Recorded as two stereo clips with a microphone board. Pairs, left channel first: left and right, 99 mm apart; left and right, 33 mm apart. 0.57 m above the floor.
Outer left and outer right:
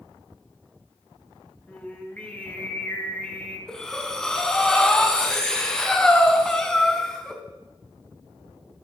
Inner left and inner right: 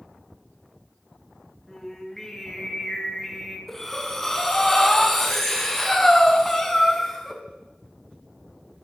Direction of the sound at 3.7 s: 10° left (ahead or behind).